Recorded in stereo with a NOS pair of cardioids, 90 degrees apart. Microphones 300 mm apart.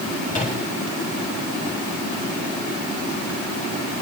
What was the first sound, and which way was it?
A microwave, 25° left.